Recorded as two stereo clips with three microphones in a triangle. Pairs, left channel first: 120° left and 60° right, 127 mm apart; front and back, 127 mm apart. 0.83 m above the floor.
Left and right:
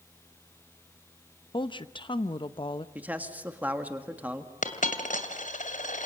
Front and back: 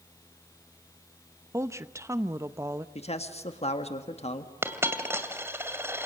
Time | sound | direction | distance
1.5 | a woman speaking | 125° left | 0.9 m
3.0 | a man speaking | 15° left | 1.7 m
4.6 | a dropped coin | 110° left | 2 m